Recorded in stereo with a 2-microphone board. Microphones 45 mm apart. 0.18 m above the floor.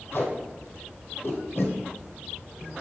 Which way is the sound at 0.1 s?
50° left (ahead or behind).